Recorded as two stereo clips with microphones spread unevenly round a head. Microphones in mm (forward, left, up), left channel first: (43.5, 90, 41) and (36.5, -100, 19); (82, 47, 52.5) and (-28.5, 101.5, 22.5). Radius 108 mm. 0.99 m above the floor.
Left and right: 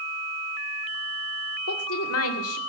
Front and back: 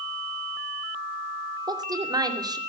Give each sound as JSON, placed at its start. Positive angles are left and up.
{"t": 1.7, "sound": "a woman speaking", "azimuth_deg": 95, "distance_m": 2.5}